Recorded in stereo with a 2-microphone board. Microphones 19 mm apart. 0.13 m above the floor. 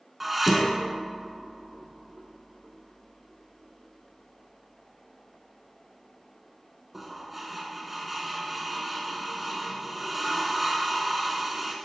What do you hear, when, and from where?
0.2 s dishes clattering: 10° right (ahead or behind), 0.9 m